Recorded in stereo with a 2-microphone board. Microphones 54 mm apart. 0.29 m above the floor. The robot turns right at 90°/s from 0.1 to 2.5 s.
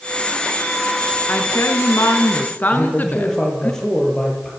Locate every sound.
1.3 s a woman speaking: 35° left, 3.5 m; by 3.7 s 145° left, 3.5 m
2.7 s a man speaking: 10° left (ahead or behind), 7.5 m